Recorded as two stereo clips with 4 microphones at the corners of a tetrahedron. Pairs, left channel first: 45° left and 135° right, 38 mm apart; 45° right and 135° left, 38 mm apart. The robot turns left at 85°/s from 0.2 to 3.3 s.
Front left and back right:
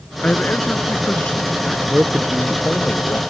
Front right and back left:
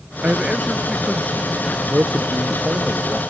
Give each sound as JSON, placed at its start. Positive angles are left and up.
{"t": 0.2, "sound": "a man speaking", "azimuth_deg": 95}
{"t": 1.9, "sound": "a man speaking", "azimuth_deg": 175}